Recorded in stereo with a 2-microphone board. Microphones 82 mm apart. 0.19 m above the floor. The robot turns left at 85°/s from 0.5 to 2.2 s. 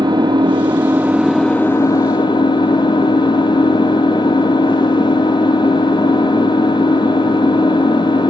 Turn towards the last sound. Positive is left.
turn(degrees=105)